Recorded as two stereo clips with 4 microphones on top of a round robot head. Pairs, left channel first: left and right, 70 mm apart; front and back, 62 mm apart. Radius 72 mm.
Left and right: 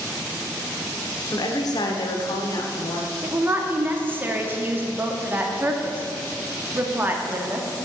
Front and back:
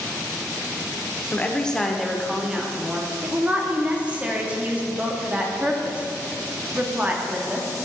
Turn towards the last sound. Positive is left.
turn(degrees=-125)